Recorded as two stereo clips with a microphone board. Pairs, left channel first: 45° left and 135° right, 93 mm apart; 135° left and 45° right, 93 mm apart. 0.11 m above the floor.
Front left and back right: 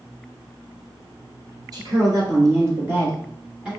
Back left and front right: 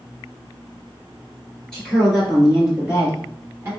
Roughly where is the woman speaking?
Behind right.